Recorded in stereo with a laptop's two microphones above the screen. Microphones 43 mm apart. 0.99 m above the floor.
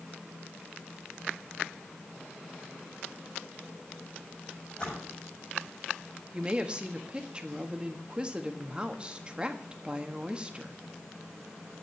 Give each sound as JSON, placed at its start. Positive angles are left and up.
{"t": 4.7, "sound": "a splash", "side_deg": 25, "distance_m": 6.0}
{"t": 6.3, "sound": "a woman speaking", "side_deg": -25, "distance_m": 1.4}